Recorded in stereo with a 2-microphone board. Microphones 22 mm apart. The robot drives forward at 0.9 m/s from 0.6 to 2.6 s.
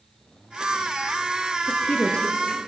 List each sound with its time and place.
1.7 s a woman speaking: 70° left (ahead or behind), 3.5 m; by 2.6 s 60° left (ahead or behind), 4 m